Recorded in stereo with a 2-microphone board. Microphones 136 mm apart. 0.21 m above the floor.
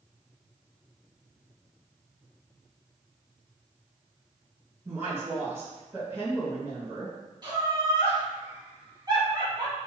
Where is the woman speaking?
20° right (ahead or behind), 1.5 m.